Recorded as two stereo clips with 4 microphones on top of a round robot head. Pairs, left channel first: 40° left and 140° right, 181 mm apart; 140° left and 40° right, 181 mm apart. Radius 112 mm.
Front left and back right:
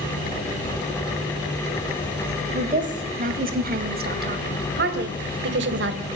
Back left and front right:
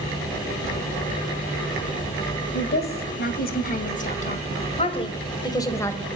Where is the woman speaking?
170° left, 3.5 m; by 6.0 s 140° right, 2.5 m.